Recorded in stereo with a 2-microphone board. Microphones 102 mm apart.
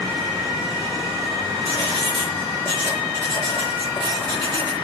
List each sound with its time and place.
1.6 s writing: 60° left (ahead or behind), 4.5 m